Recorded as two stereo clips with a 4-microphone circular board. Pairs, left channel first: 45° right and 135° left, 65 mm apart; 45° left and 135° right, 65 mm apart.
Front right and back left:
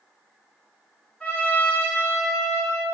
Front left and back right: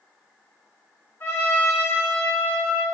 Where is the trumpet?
10° left, 1.3 m.